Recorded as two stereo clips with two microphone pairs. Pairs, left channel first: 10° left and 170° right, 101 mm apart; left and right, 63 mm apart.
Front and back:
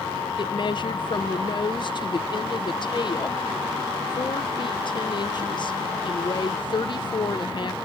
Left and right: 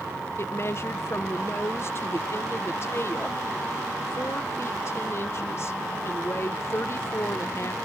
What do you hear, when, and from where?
0.4 s a woman speaking: 50° left